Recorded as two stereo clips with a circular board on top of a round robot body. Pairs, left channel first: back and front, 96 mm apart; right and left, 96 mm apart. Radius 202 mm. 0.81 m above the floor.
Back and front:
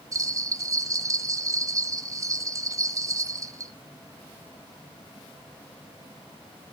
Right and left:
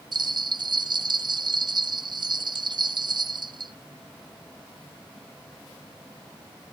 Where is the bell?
55° left, 0.9 m.